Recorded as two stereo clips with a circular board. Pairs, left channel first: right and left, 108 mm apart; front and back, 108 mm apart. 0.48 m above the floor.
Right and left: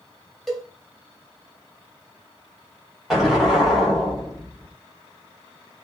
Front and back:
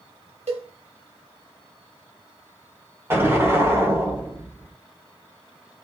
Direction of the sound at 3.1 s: 175° left.